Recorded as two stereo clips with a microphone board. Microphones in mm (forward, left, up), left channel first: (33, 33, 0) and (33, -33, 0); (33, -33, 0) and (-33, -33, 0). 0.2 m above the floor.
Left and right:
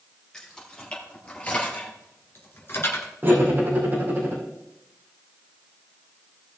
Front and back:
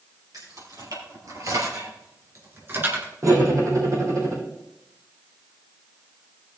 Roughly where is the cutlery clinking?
Behind right.